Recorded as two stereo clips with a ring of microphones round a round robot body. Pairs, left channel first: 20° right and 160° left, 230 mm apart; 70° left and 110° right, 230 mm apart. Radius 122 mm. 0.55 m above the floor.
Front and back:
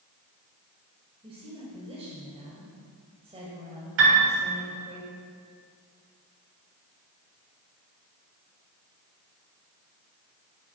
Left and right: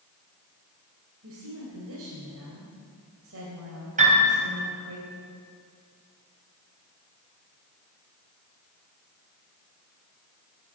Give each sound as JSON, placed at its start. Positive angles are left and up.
{"t": 1.2, "sound": "a woman speaking", "azimuth_deg": -135, "distance_m": 3.0}
{"t": 4.0, "sound": "a piano", "azimuth_deg": -170, "distance_m": 3.0}